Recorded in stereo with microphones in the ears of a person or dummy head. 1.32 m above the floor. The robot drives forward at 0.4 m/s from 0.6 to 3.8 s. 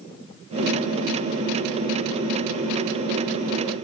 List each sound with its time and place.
Only background noise.